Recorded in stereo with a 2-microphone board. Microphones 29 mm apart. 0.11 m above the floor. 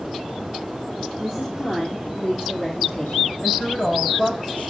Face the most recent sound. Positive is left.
turn(degrees=55)  # may be behind; listen again after turning